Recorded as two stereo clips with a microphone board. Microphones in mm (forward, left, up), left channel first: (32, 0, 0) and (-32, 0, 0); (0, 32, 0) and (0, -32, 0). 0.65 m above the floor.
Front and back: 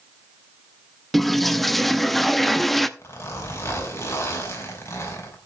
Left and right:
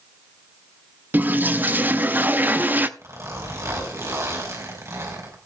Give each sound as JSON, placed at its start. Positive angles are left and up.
{"t": 1.1, "sound": "a toilet flushing", "azimuth_deg": -85, "distance_m": 0.6}
{"t": 3.0, "sound": "a zipper", "azimuth_deg": -50, "distance_m": 4.5}